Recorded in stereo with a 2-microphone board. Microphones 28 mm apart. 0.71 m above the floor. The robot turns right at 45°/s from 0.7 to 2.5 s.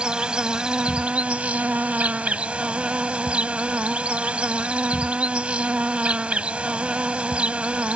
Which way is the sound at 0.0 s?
140° right.